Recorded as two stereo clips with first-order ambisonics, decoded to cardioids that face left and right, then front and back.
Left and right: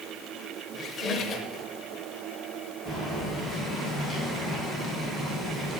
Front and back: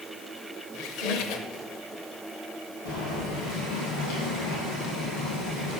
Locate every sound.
0.7 s a squeak: 30° left, 0.8 m
2.9 s boiling: 10° left, 3 m